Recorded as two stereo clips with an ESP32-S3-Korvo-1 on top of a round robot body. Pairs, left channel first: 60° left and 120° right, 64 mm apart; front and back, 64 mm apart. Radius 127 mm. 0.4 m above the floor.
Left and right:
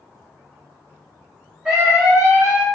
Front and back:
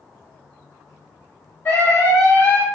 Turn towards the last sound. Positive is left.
turn(degrees=-50)